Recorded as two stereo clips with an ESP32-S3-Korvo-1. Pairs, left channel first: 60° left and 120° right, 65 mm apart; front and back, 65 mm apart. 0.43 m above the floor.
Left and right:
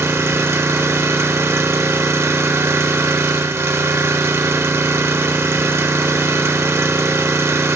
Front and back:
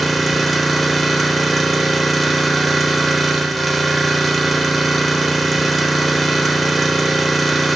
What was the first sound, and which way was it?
An engine running, 90° right.